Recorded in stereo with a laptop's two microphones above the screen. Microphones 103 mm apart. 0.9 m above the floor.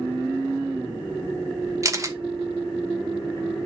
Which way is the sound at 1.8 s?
30° right (ahead or behind).